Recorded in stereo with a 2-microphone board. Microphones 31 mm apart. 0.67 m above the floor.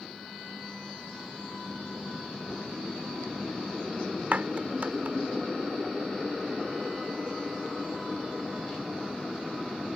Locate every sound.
4.3 s a clap: 55° right (ahead or behind)